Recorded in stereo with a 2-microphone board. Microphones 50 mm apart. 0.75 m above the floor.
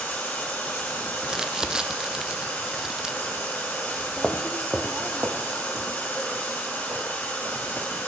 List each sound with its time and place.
0.0 s running water: 45° left (ahead or behind), 4.5 m
1.2 s crumpling: 10° right (ahead or behind), 0.6 m
4.2 s footsteps: 20° left (ahead or behind), 0.8 m; by 8.0 s 60° right (ahead or behind), 3.5 m